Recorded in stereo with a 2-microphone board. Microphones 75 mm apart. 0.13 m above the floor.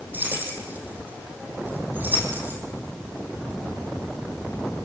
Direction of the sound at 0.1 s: 25° right (ahead or behind).